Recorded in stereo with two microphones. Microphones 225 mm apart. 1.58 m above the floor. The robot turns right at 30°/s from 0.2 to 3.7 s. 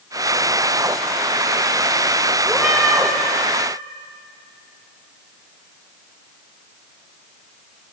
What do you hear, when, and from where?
2.5 s a cat meowing: centre (ahead or behind), 0.9 m; by 3.1 s 10° right (ahead or behind), 0.9 m